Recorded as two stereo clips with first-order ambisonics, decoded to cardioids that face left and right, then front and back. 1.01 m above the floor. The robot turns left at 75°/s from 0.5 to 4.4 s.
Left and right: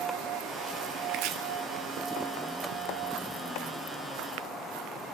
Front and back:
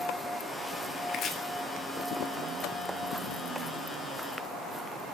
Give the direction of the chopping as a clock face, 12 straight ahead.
2 o'clock.